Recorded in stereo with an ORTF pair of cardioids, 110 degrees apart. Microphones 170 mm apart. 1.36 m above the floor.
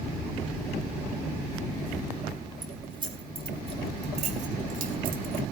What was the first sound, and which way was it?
Keys jangling, 25° right.